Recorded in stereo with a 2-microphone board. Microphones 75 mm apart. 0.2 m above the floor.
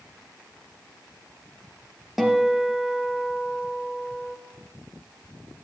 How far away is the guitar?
About 3 m.